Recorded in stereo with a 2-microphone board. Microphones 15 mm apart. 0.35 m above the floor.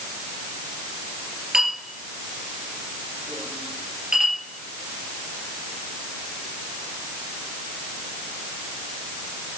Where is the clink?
35° right (ahead or behind), 4 m.